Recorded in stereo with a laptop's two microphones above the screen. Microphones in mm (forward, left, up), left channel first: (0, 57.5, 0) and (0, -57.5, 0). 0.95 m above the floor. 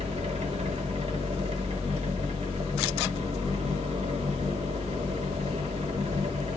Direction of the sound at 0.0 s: 70° right (ahead or behind).